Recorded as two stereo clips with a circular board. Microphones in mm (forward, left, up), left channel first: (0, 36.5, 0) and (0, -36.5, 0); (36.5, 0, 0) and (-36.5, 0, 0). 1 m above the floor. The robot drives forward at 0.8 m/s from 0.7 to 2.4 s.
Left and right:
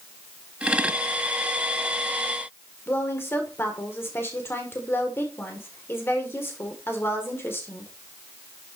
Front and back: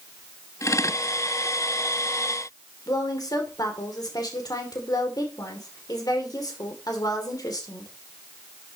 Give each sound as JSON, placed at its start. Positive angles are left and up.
{"t": 2.9, "sound": "a woman speaking", "azimuth_deg": 30, "distance_m": 2.5}